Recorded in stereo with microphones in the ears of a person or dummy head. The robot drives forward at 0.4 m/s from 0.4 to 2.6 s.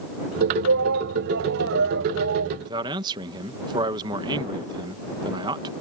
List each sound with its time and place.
0.6 s a shout: 60° right (ahead or behind); by 2.5 s 55° right (ahead or behind)
2.6 s a man speaking: 20° right (ahead or behind)